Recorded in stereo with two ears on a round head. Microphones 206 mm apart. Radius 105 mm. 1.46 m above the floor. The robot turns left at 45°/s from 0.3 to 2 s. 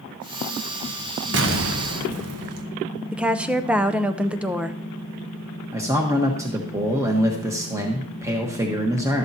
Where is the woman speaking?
5° right (ahead or behind), 0.5 m.